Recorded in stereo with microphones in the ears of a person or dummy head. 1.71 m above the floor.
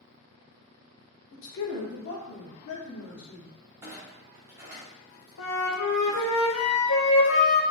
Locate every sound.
1.3 s a man speaking: 70° left (ahead or behind), 1.0 m; by 3.5 s 65° left (ahead or behind), 1.9 m
3.8 s a clunk: 5° right (ahead or behind), 1.1 m
5.4 s a flute: 70° left (ahead or behind), 0.7 m